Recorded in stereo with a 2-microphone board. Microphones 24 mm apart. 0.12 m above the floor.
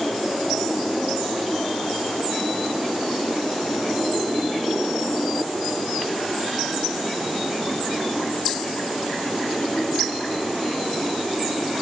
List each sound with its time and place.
Only background noise.